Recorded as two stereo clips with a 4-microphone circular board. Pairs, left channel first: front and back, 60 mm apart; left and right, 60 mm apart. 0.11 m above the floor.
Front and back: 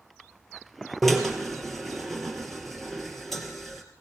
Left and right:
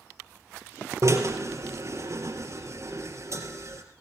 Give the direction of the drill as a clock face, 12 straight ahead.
3 o'clock.